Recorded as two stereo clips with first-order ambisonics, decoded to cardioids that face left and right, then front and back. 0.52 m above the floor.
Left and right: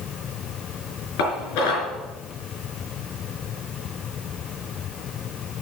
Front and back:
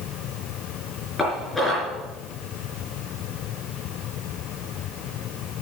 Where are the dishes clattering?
85° left, 4.5 m.